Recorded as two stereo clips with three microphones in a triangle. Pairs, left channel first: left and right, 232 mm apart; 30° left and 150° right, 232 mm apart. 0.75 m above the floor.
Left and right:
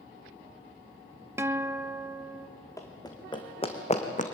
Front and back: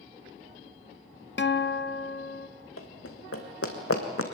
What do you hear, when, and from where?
1.4 s a guitar: 10° right, 0.6 m
2.8 s running footsteps: 15° left, 2.5 m; by 4.2 s 35° left, 2.5 m